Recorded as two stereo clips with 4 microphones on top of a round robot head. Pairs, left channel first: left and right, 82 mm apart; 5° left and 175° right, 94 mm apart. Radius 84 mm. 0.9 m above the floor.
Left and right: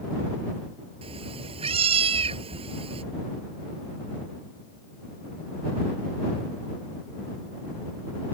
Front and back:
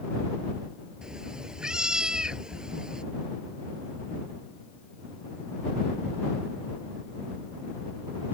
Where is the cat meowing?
90° right.